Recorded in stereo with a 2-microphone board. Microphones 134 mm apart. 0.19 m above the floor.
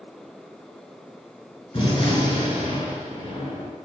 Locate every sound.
1.7 s a gunshot: 35° left (ahead or behind), 2.5 m